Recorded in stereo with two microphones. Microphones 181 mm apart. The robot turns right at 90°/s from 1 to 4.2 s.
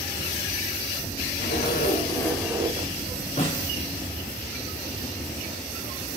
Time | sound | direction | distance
1.4 | a zipper | 90° left | 0.6 m
3.4 | a snare drum | 40° left (ahead or behind) | 1.8 m